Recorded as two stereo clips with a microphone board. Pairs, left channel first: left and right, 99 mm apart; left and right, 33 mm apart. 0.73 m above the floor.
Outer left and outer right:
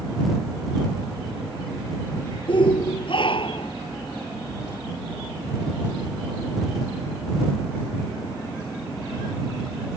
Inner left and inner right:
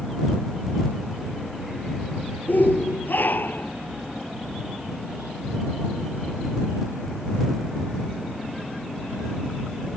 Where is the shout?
55° left (ahead or behind); by 3.7 s 60° left (ahead or behind).